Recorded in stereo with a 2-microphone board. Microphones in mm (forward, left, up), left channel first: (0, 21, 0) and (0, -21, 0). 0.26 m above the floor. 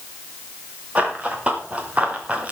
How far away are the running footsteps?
About 4.5 m.